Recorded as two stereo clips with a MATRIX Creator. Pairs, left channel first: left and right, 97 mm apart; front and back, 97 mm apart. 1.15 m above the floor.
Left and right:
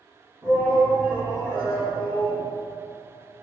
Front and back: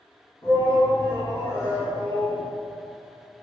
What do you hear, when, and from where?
0.4 s a shout: 30° right, 1.7 m; by 2.4 s 70° right, 2 m